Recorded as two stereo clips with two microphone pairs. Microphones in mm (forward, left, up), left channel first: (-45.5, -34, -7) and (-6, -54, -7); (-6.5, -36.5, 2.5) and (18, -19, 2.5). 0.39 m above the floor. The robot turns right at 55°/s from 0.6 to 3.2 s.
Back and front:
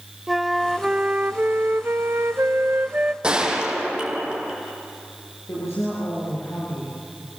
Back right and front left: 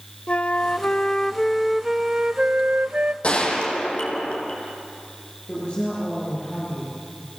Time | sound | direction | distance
0.3 | a flute | 110° right | 0.5 m
3.2 | a gunshot | 95° right | 4 m
5.5 | a woman speaking | 160° left | 7 m